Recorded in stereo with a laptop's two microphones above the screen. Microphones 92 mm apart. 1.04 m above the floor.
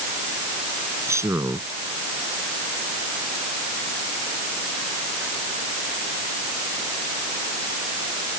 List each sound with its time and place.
1.1 s a man speaking: 30° right (ahead or behind)